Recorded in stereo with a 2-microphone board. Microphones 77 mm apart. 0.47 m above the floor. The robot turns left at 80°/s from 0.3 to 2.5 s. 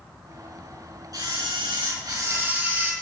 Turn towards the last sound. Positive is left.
turn(degrees=-160)